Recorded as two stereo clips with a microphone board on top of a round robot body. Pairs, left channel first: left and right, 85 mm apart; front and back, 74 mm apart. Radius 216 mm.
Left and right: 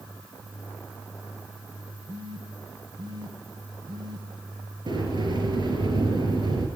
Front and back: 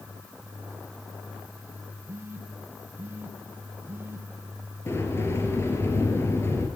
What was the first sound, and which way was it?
A phone buzzing, 120° right.